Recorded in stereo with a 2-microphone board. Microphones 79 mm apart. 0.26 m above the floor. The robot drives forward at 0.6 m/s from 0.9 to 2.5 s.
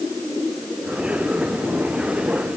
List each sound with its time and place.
Only background noise.